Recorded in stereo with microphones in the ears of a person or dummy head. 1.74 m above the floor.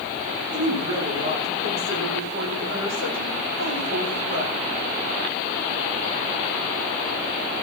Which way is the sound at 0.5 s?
80° right.